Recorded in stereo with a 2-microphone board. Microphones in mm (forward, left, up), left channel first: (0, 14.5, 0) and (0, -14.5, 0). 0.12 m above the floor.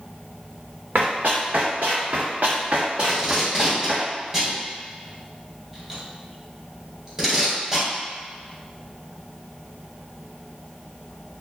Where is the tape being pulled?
15° right (ahead or behind), 1.5 m.